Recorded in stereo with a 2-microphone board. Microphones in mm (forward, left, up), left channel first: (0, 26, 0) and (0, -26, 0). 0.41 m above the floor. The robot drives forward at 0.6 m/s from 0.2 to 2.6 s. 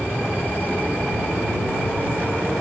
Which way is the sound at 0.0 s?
55° left (ahead or behind).